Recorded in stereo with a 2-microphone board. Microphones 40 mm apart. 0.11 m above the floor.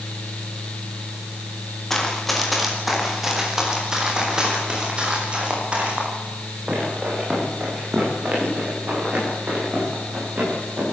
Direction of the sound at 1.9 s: 10° left (ahead or behind).